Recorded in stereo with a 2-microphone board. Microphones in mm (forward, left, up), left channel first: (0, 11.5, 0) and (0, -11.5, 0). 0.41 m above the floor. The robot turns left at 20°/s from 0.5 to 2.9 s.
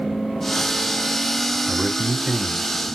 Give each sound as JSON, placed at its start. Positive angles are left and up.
{"t": 1.7, "sound": "a man speaking", "side_deg": 45, "distance_m": 2.0}